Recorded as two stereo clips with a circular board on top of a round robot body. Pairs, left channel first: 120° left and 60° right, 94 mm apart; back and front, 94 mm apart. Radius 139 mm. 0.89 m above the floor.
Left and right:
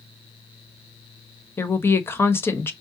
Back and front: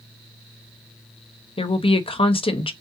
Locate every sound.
1.6 s a woman speaking: 175° right, 1.0 m